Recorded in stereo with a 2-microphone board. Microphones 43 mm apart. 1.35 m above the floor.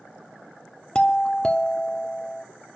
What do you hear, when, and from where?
0.9 s a doorbell: 20° left (ahead or behind), 0.8 m